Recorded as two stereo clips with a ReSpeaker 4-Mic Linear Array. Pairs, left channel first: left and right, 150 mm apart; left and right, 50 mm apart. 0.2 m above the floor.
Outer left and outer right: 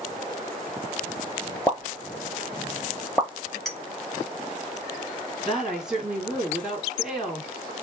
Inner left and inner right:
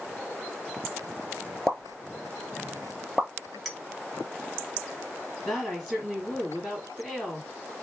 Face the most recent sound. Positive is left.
turn(degrees=-5)  # may be behind; listen again after turning